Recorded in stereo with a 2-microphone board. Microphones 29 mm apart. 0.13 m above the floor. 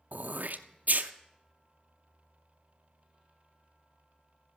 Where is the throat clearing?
75° right (ahead or behind), 0.7 m.